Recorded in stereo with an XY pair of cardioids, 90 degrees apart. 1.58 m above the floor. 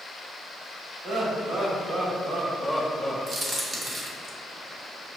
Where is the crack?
55° right, 0.9 m.